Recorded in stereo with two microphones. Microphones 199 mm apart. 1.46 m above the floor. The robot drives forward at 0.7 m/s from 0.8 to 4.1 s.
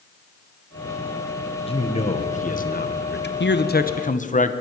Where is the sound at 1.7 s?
30° left (ahead or behind), 1.7 m; by 3.3 s 60° left (ahead or behind), 1.0 m.